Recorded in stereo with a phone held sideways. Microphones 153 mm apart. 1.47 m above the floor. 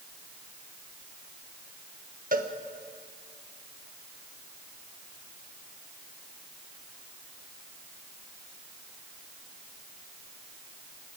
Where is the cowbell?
60° right (ahead or behind), 1.3 m.